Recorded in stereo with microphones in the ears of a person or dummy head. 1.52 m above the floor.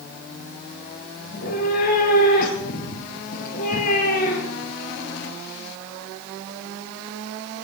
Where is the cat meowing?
50° left (ahead or behind), 3.5 m.